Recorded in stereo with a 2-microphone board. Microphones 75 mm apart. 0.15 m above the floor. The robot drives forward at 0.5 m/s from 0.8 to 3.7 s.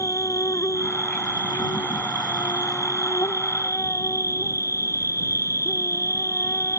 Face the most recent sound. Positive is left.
turn(degrees=40)  # may be behind; listen again after turning